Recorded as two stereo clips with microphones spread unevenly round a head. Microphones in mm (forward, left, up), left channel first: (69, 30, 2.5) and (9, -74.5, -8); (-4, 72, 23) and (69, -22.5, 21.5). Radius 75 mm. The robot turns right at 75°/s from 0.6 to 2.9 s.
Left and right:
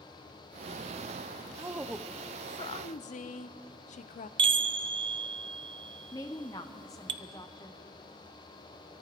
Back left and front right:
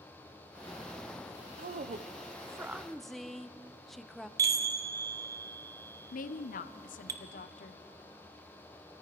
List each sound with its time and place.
1.6 s a woman speaking: 60° right, 0.6 m; by 4.3 s 40° left, 0.6 m
4.4 s a chime: 105° right, 0.6 m
6.1 s a woman speaking: 130° left, 0.6 m